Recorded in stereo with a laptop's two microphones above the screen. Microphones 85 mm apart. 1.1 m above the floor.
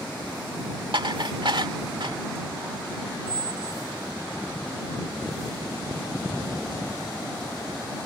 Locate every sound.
0.9 s dishes clattering: 70° right (ahead or behind)
3.3 s a squeak: 50° right (ahead or behind)